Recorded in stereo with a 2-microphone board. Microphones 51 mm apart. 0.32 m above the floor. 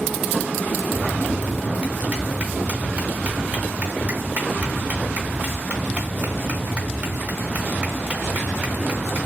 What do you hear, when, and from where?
0.9 s a bell: 30° right (ahead or behind), 0.8 m